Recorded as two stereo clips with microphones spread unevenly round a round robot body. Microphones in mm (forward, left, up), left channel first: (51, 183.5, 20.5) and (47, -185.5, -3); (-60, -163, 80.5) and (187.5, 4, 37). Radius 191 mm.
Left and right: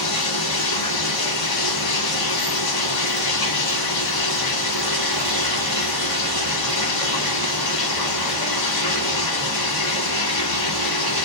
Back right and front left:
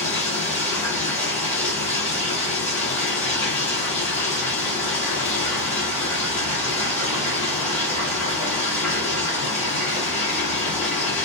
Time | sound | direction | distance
0.0 | running water | 125° left | 1.1 m